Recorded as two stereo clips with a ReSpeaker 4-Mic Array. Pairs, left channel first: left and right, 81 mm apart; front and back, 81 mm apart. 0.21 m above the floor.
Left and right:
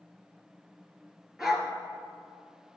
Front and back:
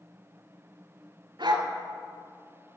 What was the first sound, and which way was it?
A dog barking, 175° right.